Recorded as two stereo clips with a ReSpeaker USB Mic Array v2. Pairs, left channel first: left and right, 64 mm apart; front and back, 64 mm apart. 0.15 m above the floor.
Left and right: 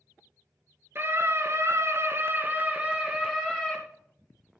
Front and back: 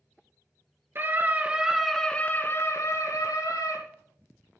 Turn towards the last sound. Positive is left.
turn(degrees=-5)